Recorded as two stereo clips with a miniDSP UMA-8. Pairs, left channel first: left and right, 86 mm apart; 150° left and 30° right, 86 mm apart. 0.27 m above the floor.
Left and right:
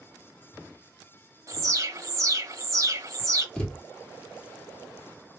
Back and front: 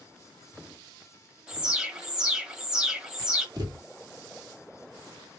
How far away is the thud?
About 2 m.